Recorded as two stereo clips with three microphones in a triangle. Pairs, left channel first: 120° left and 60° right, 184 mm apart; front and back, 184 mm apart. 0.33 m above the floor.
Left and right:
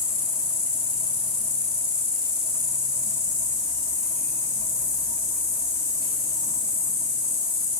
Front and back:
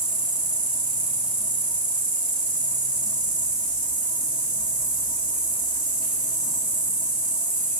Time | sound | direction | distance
0.0 | an insect | 40° right | 2.0 m